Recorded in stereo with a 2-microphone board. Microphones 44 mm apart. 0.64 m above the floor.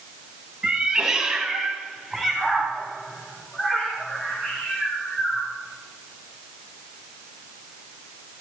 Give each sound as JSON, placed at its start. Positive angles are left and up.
{"t": 0.6, "sound": "a cat meowing", "side_deg": -20, "distance_m": 2.0}